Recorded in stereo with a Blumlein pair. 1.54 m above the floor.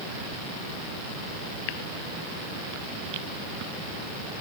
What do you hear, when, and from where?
Only background noise.